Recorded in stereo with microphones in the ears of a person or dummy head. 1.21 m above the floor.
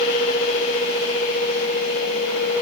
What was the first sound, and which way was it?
Only background noise.